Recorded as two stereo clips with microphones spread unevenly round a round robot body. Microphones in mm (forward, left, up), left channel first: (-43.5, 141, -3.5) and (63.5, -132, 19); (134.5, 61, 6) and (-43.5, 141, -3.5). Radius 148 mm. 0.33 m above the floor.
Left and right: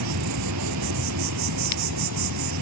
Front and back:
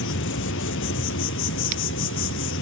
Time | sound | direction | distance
0.0 | an insect | 40° right | 0.8 m